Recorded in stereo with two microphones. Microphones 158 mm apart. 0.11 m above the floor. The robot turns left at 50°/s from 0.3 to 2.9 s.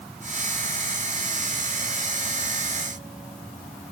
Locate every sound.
Only background noise.